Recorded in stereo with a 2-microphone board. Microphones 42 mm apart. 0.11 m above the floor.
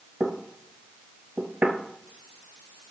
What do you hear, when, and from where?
0.2 s knocking: 30° right (ahead or behind), 1.8 m